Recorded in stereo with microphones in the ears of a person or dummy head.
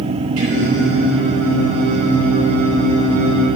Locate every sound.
0.4 s singing: 85° right, 4 m